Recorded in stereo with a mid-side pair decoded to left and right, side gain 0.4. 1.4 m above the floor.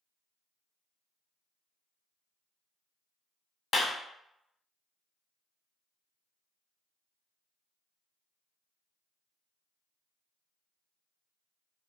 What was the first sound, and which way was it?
A clap, 55° left.